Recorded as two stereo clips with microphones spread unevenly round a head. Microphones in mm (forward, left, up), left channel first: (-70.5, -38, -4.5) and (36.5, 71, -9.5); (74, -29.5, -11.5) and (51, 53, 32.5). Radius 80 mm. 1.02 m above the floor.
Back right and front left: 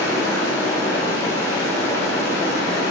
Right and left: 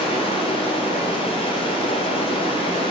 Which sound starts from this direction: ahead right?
Running water, at 0.0 s.